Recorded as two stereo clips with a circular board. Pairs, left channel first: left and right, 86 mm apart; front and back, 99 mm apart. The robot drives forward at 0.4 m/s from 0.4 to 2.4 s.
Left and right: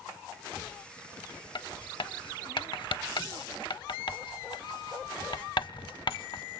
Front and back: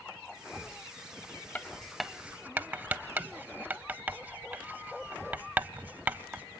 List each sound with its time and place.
1.6 s writing: 70° left, 0.5 m; by 6.4 s 110° left, 0.5 m